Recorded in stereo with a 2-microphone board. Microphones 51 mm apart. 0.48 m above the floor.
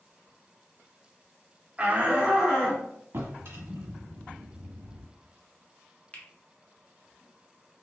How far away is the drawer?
About 1.5 m.